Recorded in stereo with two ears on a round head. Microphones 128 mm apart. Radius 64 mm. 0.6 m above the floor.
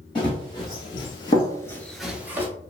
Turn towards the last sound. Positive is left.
turn(degrees=-15)  # may be behind; listen again after turning